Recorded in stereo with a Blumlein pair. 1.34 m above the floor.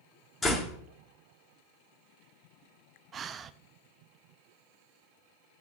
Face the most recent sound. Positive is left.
turn(degrees=-25)